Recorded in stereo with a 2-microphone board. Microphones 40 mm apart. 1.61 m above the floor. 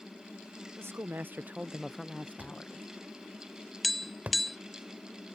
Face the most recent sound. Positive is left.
turn(degrees=0)  # may be behind; listen again after turning